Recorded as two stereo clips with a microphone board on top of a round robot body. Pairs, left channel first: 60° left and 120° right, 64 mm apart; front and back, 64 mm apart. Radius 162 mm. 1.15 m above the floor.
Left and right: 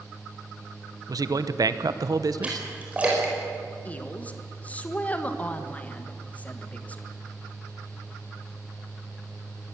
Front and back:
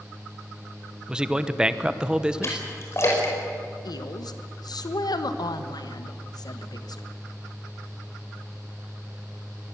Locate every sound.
1.1 s a man speaking: 105° right, 1.1 m
2.4 s a splash: 50° right, 5 m
3.9 s a woman speaking: 5° right, 1.7 m